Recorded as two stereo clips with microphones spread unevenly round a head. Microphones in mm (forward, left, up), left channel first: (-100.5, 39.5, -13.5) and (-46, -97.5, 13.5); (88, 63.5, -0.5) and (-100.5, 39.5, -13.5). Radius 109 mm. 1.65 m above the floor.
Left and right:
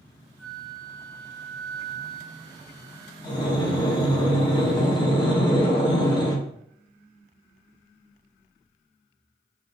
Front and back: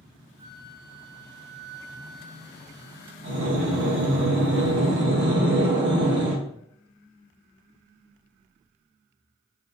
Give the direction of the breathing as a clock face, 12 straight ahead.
6 o'clock.